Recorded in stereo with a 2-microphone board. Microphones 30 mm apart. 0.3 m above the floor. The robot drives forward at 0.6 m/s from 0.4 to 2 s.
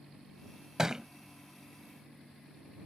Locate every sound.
0.8 s a thud: 15° right (ahead or behind); by 1.1 s 20° right (ahead or behind)